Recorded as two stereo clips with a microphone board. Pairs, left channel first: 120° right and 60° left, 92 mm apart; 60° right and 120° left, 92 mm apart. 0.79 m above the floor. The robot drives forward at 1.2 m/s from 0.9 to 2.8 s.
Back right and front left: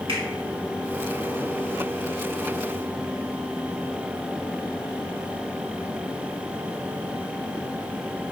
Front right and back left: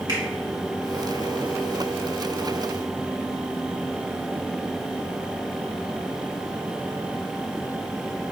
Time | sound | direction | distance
0.1 | a finger snap | 80° left | 1.8 m